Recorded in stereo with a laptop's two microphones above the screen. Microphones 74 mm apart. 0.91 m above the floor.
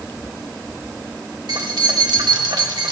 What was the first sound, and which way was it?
Keys jangling, 70° right (ahead or behind).